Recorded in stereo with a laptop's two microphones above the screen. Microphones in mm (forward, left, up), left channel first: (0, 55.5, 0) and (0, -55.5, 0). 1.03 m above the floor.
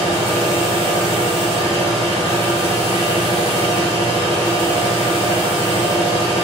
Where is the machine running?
40° right (ahead or behind), 1.4 m.